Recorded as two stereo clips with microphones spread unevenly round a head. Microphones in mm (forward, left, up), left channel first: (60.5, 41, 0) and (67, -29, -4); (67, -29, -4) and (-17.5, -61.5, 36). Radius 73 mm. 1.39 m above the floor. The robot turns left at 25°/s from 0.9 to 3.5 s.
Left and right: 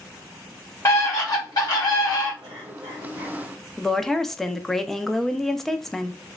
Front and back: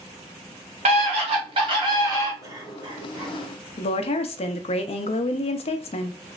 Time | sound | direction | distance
0.8 | a scream | 160° left | 0.9 m
2.4 | a cough | 100° right | 1.2 m
3.8 | a woman speaking | 10° left | 0.5 m